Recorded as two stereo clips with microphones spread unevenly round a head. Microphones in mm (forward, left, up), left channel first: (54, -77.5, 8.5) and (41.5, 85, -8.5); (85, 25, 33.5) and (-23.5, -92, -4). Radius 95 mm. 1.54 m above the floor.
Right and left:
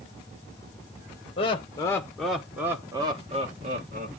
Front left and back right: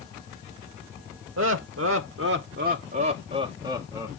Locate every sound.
1.4 s laughter: 145° right, 1.1 m; by 4.1 s 145° left, 1.4 m